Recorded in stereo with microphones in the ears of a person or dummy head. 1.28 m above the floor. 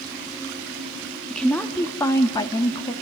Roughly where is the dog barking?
No dog barking in this recording.